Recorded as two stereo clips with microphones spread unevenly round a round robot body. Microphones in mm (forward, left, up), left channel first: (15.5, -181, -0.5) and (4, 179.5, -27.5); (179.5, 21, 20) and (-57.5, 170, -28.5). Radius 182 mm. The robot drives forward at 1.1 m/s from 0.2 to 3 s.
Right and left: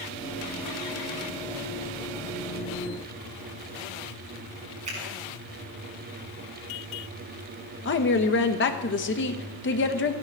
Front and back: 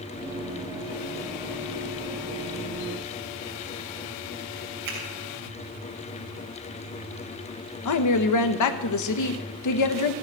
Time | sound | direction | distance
4.8 | a finger snap | 165° left | 6 m
7.8 | a woman speaking | 30° right | 1.2 m